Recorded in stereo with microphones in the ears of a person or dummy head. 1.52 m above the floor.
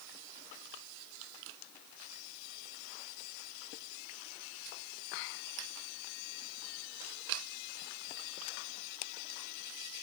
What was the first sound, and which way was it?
Only background noise.